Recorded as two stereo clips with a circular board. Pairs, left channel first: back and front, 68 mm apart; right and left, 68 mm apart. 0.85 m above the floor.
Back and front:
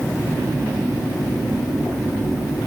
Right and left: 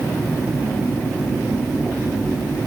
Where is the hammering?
I don't hear hammering.